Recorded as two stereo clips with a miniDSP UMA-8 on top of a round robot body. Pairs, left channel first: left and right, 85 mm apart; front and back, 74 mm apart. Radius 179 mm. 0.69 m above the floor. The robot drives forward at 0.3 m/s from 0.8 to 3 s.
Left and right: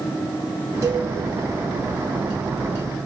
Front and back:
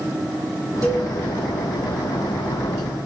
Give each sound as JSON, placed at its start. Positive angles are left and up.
{"t": 0.8, "sound": "a cowbell", "azimuth_deg": -145, "distance_m": 5.5}